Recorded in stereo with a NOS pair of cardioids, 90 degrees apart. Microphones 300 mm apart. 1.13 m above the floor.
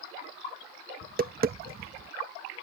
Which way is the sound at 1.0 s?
30° right.